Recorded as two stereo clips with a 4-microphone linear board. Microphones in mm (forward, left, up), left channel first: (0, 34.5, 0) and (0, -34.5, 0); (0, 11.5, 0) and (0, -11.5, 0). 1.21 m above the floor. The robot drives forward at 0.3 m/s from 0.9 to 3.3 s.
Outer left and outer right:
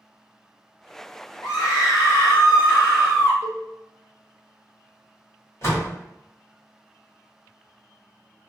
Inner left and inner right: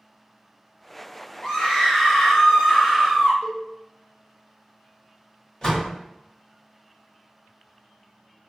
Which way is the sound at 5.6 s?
40° left (ahead or behind).